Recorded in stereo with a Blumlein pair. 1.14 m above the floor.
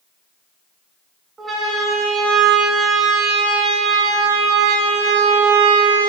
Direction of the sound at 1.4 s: 15° right.